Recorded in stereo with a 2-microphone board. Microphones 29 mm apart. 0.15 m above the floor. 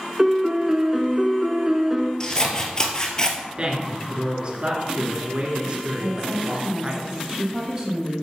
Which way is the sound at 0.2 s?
15° right (ahead or behind).